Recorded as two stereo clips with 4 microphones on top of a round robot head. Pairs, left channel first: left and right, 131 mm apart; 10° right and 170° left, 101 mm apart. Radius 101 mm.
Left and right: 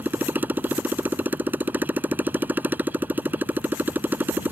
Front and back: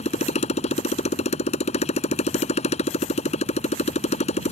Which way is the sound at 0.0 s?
10° right.